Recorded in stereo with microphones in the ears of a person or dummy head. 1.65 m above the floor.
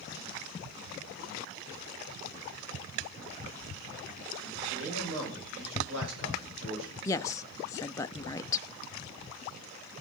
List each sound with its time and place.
4.7 s a man speaking: 70° right (ahead or behind), 8.5 m
7.0 s a woman speaking: 15° left (ahead or behind), 0.5 m